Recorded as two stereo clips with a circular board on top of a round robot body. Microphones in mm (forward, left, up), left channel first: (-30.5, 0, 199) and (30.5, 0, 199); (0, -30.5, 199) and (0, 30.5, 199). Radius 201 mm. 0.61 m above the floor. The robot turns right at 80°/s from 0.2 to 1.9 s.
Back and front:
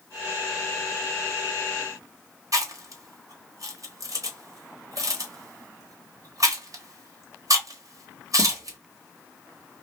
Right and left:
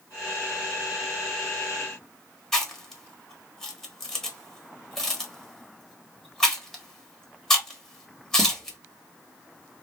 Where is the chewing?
5° right, 1.4 m.